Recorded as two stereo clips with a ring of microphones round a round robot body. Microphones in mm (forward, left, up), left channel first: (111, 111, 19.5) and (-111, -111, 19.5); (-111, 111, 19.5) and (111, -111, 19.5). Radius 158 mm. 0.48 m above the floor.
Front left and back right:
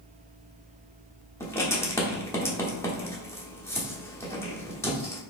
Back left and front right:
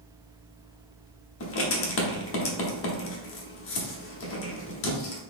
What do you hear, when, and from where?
1.4 s writing: 120° left, 1.0 m